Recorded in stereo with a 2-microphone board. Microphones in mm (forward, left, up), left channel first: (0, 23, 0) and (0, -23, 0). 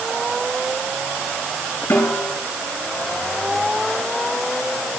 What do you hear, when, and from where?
1.9 s a snare drum: 70° left (ahead or behind), 8.5 m